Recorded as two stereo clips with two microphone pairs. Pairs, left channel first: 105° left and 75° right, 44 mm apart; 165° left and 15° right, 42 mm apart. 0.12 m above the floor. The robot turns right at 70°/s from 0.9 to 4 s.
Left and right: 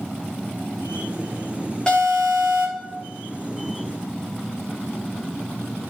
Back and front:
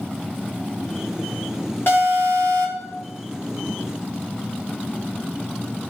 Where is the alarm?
175° left, 4 m; by 2.9 s 115° right, 4 m.